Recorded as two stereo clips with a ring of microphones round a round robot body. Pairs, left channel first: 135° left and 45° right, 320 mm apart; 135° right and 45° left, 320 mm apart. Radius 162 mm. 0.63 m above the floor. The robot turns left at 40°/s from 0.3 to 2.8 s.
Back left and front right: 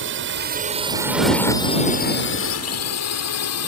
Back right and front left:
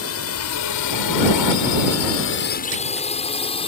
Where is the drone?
95° right; by 3.7 s 155° left.